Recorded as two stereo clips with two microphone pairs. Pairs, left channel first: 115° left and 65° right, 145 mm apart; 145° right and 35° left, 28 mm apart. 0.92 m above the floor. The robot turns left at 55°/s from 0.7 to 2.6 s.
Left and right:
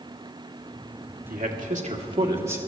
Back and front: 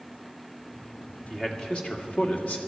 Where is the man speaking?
70° right, 2 m; by 2.6 s 140° right, 2 m.